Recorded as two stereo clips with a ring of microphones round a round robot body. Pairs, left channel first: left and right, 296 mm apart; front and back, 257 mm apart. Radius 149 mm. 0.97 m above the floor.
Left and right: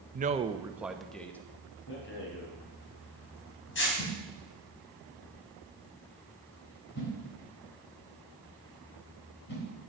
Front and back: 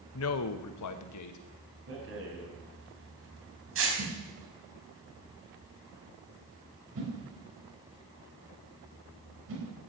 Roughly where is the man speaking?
Ahead right.